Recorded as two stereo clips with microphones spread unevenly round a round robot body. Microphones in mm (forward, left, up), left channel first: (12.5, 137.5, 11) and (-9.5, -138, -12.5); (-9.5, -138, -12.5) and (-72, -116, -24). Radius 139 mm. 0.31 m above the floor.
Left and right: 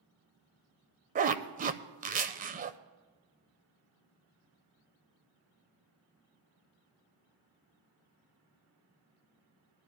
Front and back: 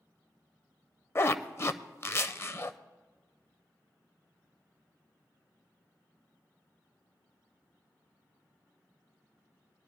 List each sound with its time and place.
1.1 s a zipper: 60° right, 0.6 m